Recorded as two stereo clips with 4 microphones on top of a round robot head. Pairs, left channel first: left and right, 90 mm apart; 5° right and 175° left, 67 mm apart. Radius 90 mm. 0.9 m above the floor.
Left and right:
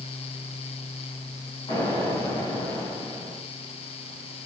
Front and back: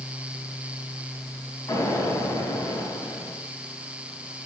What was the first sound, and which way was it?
An explosion, 35° left.